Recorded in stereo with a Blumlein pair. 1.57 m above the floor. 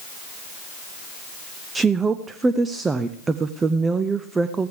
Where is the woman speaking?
15° right, 0.6 m.